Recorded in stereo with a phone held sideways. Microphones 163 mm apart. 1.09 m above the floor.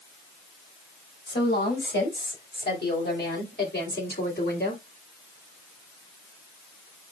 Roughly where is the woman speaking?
Left.